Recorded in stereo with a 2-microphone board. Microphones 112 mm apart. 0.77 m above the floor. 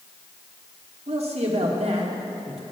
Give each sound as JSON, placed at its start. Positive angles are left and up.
{"t": 1.1, "sound": "a man speaking", "side_deg": -65, "distance_m": 1.4}